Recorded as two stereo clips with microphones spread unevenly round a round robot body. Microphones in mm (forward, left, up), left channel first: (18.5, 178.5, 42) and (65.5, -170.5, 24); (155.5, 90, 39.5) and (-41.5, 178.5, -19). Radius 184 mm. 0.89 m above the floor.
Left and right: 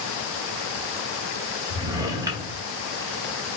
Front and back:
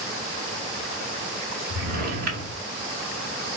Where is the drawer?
165° right, 0.8 m.